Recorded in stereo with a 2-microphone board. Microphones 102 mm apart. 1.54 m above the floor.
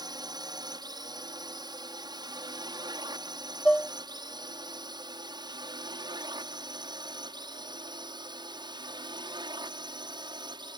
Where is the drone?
40° right (ahead or behind); by 10.8 s 45° right (ahead or behind).